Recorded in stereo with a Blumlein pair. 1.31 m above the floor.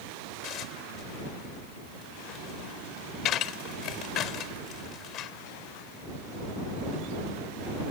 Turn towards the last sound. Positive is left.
turn(degrees=35)